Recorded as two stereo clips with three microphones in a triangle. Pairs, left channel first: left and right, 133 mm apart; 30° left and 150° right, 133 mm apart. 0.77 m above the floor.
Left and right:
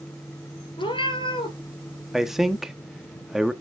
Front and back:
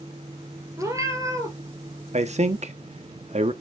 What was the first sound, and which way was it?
A cat meowing, 145° left.